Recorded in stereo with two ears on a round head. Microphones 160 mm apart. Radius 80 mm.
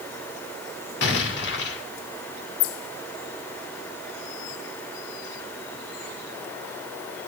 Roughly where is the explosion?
Left.